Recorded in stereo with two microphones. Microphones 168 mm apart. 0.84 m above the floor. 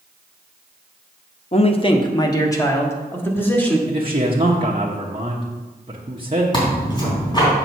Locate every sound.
1.5 s a man speaking: 40° left (ahead or behind), 0.8 m; by 3.8 s 10° left (ahead or behind), 2 m
3.9 s a man speaking: 35° right (ahead or behind), 1.1 m
6.5 s tearing paper: 25° left (ahead or behind), 3.5 m